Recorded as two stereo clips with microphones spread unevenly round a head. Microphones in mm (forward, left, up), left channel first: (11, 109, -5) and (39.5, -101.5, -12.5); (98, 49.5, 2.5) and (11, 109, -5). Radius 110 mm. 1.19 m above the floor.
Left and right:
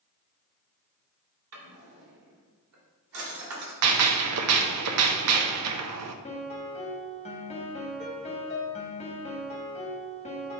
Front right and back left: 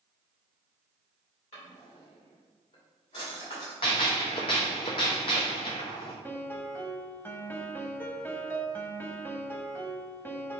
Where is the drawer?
85° right, 2 m.